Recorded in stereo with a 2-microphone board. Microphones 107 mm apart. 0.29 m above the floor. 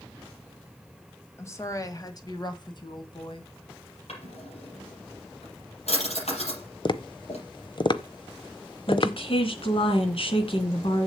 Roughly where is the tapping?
Left.